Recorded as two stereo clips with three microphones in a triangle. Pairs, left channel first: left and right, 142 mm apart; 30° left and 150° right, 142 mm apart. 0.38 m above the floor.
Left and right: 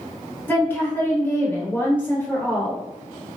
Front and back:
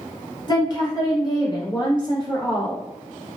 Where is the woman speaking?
30° left, 0.9 m.